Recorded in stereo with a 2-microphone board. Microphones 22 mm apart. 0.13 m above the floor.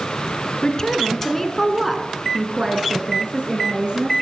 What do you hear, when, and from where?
0.6 s a woman speaking: 35° left (ahead or behind), 2.0 m; by 4.1 s 50° right (ahead or behind), 3 m